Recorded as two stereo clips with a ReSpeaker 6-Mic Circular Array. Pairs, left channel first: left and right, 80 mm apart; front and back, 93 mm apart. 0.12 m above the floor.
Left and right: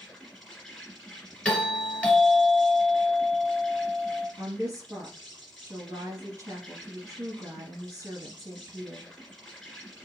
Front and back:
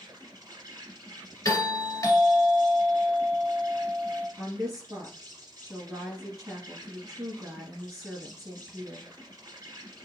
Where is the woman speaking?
120° right, 1.7 m.